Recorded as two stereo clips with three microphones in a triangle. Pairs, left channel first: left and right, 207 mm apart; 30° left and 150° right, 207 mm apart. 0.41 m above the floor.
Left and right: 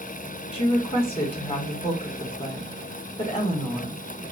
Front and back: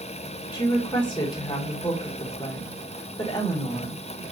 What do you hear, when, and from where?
0.5 s a woman speaking: 70° left, 1.1 m